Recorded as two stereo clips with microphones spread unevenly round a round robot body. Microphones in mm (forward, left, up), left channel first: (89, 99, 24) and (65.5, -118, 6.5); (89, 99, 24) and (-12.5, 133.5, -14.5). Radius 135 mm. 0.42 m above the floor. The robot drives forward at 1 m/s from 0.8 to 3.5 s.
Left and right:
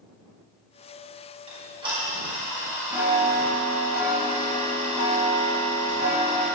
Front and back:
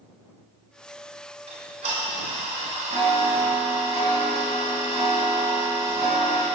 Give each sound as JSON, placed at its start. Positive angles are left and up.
{"t": 1.5, "sound": "ticking", "azimuth_deg": -165, "distance_m": 2.5}